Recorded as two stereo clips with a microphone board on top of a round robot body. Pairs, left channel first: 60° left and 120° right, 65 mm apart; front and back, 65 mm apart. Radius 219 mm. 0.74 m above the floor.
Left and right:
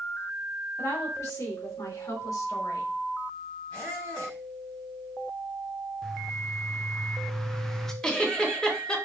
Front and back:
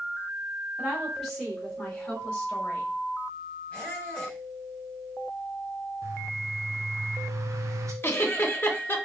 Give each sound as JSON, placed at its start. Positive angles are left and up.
{"t": 0.8, "sound": "a woman speaking", "azimuth_deg": 90, "distance_m": 3.5}
{"t": 3.7, "sound": "a squeak", "azimuth_deg": 65, "distance_m": 2.5}
{"t": 6.0, "sound": "a bird", "azimuth_deg": 145, "distance_m": 0.5}
{"t": 8.0, "sound": "a giggle", "azimuth_deg": -10, "distance_m": 1.2}